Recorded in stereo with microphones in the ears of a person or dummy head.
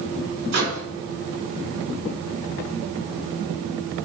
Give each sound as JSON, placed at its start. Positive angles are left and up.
{"t": 0.5, "sound": "a microwave", "side_deg": -55, "distance_m": 2.0}